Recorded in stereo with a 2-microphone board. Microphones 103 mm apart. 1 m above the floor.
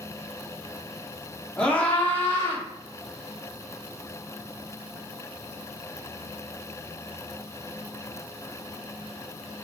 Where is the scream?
5° left (ahead or behind), 1.7 m; by 2.6 s 35° left (ahead or behind), 1.8 m.